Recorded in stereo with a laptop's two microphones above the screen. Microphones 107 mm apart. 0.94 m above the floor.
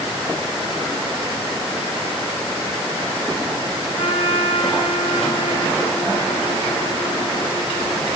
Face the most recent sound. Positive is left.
turn(degrees=60)  # may be behind; listen again after turning